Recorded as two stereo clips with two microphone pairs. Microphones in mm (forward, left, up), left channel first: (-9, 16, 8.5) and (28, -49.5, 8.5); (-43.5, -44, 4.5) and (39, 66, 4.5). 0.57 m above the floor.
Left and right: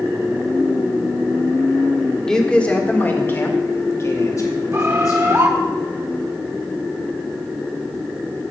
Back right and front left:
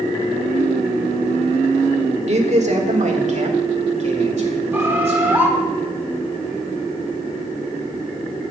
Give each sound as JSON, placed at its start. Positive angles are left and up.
{"t": 2.3, "sound": "a man speaking", "azimuth_deg": 35, "distance_m": 1.5}
{"t": 4.7, "sound": "a bird", "azimuth_deg": -20, "distance_m": 1.7}